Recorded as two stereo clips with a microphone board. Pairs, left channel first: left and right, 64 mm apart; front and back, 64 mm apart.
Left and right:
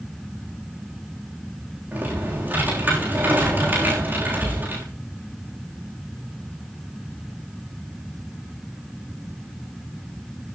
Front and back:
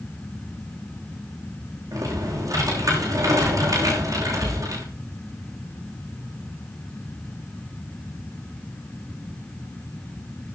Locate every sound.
1.9 s typing on a keyboard: 155° right, 6.5 m